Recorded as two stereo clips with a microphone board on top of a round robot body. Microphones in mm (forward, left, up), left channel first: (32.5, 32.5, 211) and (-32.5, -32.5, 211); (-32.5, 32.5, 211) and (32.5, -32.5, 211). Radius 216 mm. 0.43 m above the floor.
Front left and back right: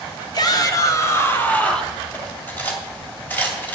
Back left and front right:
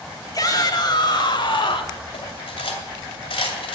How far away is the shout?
About 2 m.